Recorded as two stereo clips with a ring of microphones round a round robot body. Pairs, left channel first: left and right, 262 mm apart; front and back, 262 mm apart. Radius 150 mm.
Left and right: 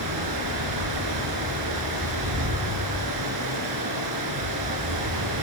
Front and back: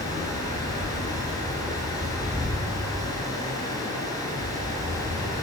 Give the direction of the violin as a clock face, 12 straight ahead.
No violin in this recording.